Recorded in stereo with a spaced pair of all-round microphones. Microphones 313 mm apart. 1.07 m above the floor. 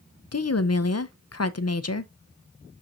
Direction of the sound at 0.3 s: 55° left (ahead or behind).